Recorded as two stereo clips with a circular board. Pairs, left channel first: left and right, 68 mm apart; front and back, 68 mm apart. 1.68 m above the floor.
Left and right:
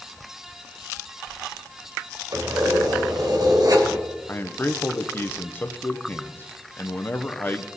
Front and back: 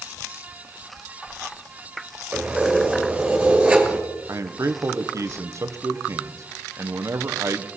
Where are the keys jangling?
105° right, 2.5 m.